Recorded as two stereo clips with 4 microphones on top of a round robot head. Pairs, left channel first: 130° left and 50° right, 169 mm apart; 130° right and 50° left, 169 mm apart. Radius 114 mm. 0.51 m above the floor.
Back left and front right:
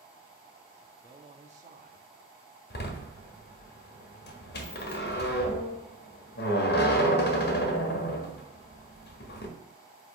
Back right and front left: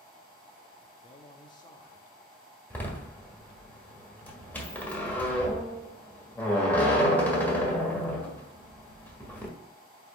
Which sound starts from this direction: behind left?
A door slam, at 2.7 s.